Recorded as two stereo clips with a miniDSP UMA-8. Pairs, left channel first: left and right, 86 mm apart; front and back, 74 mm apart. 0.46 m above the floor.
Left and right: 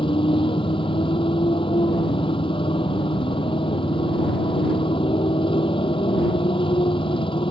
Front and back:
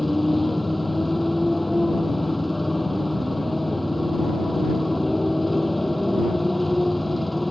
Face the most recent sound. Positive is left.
turn(degrees=90)